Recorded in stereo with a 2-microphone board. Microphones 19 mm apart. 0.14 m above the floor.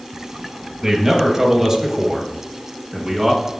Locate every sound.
0.8 s a man speaking: 25° right (ahead or behind), 2.5 m; by 3.5 s centre (ahead or behind), 1.7 m